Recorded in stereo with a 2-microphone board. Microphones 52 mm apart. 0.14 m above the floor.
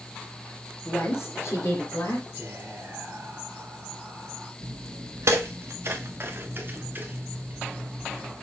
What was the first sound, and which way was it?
A woman speaking, 50° left (ahead or behind).